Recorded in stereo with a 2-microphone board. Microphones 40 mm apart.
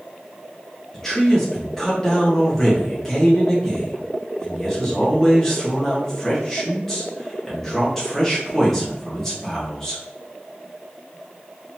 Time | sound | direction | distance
0.9 | a man speaking | 10° left (ahead or behind) | 1.4 m